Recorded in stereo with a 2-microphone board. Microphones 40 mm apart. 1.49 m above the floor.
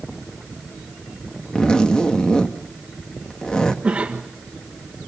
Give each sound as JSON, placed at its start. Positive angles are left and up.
{"t": 1.6, "sound": "a zipper", "side_deg": 20, "distance_m": 1.6}
{"t": 3.8, "sound": "a cough", "side_deg": -30, "distance_m": 1.6}